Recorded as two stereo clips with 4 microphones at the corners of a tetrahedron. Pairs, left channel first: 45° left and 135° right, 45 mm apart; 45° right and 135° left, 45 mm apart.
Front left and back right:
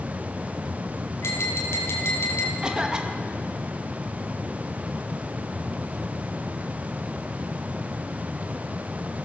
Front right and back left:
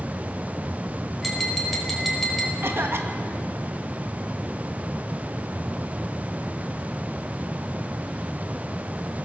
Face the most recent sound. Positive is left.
turn(degrees=155)